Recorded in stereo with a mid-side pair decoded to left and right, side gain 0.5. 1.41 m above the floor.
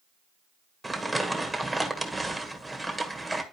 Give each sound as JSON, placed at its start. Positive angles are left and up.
{"t": 0.8, "sound": "crumpling", "azimuth_deg": -10, "distance_m": 1.5}